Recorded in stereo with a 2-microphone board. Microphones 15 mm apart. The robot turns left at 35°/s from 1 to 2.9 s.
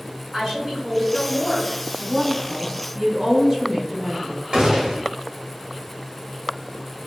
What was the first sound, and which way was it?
A woman speaking, 45° right (ahead or behind).